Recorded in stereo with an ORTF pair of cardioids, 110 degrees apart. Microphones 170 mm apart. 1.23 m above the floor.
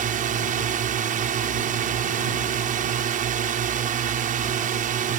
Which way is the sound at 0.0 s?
55° right.